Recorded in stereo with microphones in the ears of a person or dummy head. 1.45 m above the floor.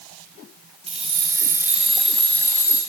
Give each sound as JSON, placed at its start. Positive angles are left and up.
{"t": 0.9, "sound": "keys jangling", "side_deg": -35, "distance_m": 1.8}